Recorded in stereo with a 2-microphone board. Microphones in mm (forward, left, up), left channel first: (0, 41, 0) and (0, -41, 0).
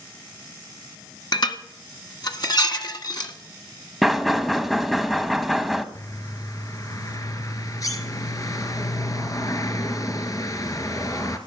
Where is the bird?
45° left (ahead or behind), 1.3 m.